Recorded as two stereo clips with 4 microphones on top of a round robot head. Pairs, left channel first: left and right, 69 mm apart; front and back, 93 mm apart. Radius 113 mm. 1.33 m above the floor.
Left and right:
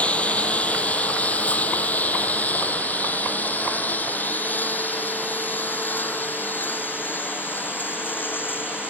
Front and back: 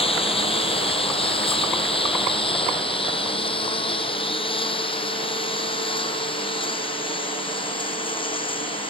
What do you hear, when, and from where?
0.0 s a lawn mower: 20° left; by 8.9 s 30° left